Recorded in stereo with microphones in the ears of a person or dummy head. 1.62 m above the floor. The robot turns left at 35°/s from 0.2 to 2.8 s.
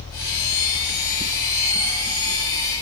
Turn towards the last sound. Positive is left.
No sound to turn to.